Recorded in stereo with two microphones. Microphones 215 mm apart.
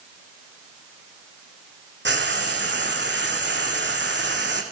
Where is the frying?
50° right (ahead or behind), 2.5 m.